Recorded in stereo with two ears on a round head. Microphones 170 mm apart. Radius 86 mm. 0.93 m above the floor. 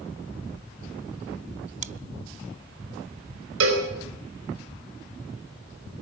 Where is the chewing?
40° right (ahead or behind), 0.6 m.